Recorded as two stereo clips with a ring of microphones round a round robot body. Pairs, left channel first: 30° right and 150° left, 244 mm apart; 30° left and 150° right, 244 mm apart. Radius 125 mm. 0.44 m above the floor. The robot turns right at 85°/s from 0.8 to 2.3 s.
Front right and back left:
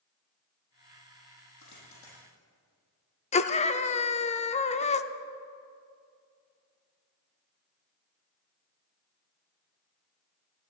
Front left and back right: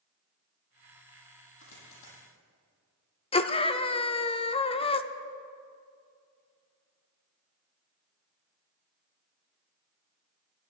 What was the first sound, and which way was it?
A dropped coin, 15° right.